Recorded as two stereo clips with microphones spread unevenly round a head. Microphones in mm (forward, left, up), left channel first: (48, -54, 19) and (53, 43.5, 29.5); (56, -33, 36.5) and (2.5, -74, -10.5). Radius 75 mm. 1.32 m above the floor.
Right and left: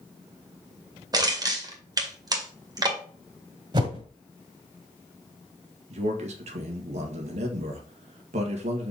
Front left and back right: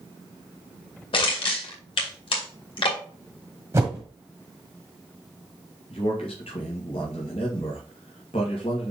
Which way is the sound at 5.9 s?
90° left.